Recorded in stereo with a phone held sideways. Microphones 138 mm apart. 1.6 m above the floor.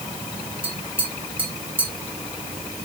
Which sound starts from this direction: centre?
Tapping, at 0.6 s.